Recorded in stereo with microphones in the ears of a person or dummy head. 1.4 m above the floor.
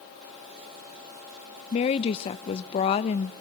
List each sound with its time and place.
1.7 s a woman speaking: 30° left (ahead or behind), 0.8 m